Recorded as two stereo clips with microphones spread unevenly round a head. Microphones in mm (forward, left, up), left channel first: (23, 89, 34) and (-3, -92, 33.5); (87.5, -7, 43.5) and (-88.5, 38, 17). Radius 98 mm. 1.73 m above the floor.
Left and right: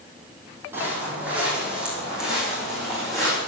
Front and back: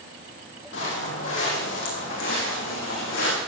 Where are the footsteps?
20° right, 4.5 m; by 3.4 s 10° right, 7 m.